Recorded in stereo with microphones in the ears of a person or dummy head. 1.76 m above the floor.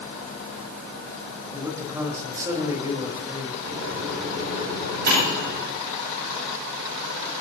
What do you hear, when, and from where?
1.5 s a man speaking: 15° right (ahead or behind), 4 m
3.7 s a microwave: 55° right (ahead or behind), 10 m